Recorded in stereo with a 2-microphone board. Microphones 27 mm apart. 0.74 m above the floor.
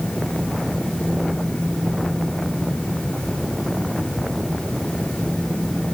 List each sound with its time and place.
Only background noise.